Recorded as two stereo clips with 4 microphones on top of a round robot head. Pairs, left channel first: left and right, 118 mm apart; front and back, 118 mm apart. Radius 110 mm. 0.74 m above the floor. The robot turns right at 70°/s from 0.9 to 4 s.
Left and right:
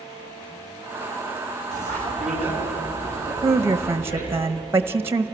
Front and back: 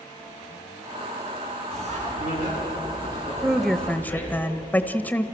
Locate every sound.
1.7 s a bicycle bell: 90° right, 6.5 m; by 4.3 s 70° left, 6.5 m
3.4 s a woman speaking: 100° right, 0.9 m; by 5.2 s 60° right, 0.9 m